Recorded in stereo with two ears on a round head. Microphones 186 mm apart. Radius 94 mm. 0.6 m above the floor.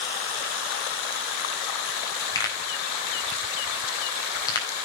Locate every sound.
2.4 s a pop: 20° left (ahead or behind), 4 m